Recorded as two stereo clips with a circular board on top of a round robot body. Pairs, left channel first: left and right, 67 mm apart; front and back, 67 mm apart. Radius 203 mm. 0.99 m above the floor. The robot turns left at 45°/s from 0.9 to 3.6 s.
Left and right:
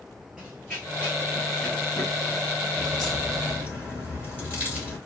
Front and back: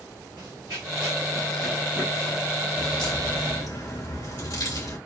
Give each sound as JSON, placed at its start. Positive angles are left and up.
{"t": 0.4, "sound": "running footsteps", "azimuth_deg": 180, "distance_m": 1.0}
{"t": 2.8, "sound": "a crack", "azimuth_deg": 15, "distance_m": 2.5}